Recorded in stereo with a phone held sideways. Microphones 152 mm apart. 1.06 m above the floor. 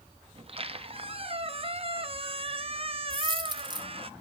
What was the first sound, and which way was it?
A squeak, 40° right (ahead or behind).